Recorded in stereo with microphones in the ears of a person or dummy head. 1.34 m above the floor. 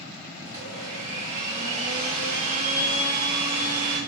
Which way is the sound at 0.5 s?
40° right (ahead or behind).